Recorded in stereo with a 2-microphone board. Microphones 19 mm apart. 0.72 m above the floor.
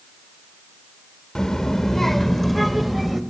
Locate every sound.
1.4 s a child speaking: 40° left (ahead or behind), 1.4 m; by 3.2 s 5° right (ahead or behind), 2 m